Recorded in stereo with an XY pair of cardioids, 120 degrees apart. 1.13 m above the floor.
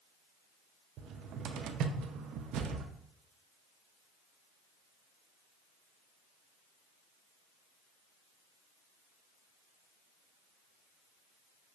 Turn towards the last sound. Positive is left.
turn(degrees=-70)